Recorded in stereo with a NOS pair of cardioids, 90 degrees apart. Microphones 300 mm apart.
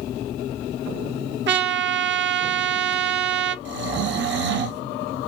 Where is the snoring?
40° right, 0.6 m.